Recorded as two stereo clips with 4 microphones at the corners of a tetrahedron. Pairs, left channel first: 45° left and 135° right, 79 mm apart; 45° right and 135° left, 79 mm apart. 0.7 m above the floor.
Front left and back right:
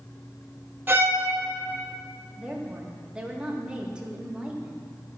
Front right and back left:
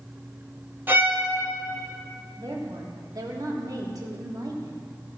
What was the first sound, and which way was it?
A violin, straight behind.